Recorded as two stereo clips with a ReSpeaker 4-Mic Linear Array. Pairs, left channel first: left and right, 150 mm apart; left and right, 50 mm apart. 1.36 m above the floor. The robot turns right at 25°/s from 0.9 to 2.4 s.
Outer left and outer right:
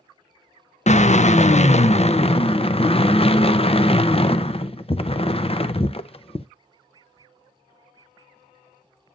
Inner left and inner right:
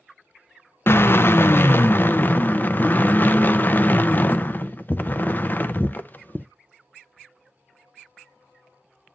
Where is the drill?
85° left, 0.6 m; by 6.5 s 125° left, 0.6 m.